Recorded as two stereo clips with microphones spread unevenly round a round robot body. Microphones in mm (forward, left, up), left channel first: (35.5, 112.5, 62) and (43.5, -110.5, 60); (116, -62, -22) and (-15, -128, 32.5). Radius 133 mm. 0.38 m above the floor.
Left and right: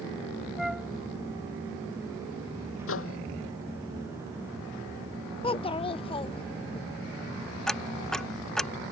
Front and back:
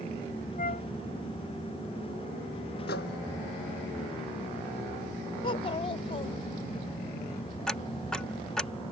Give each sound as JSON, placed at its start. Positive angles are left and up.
{"t": 0.6, "sound": "a flute", "azimuth_deg": 0}
{"t": 2.9, "sound": "a microwave", "azimuth_deg": 65}
{"t": 5.4, "sound": "a child speaking", "azimuth_deg": 30}
{"t": 7.7, "sound": "ticking", "azimuth_deg": 5}